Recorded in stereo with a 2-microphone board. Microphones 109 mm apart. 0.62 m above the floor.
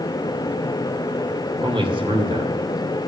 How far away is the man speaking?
About 2.5 m.